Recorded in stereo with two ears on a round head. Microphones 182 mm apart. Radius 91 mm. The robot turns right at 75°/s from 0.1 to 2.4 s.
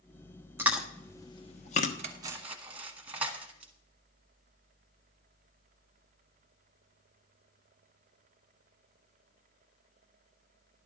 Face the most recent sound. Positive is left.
turn(degrees=-5)  # may be behind; listen again after turning